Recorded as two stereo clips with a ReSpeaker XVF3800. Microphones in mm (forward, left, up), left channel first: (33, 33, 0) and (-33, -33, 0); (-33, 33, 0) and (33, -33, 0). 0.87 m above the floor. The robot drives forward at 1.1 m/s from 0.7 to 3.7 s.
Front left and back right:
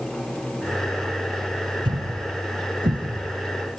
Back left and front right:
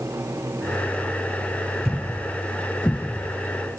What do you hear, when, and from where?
1.9 s a thud: 135° right, 1.5 m; by 3.3 s 160° right, 3 m